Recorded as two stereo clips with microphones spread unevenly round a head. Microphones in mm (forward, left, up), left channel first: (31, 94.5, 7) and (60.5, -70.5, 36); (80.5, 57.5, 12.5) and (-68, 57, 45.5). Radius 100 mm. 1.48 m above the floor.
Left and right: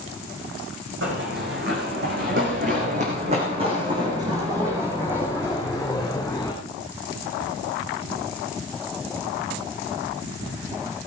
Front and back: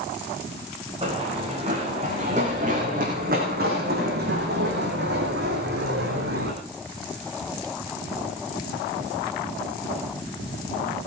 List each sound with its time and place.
1.0 s running footsteps: 115° right, 6.5 m; by 6.5 s 175° right, 6 m